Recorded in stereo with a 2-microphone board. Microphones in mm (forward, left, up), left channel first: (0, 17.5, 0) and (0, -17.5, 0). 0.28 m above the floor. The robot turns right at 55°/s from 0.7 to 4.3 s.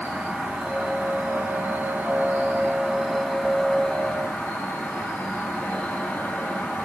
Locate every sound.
0.0 s an insect: 135° right, 4 m; by 6.9 s 60° left, 4 m